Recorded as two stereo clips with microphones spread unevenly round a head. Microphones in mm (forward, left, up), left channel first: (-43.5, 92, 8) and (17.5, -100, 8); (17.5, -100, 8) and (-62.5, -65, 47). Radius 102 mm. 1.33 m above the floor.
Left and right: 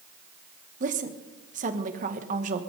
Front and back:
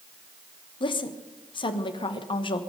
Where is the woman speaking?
20° right, 1.4 m.